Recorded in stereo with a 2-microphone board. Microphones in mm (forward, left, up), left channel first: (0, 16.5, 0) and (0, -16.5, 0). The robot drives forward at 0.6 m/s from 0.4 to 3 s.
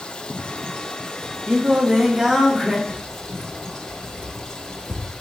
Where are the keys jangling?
65° right (ahead or behind), 0.7 m.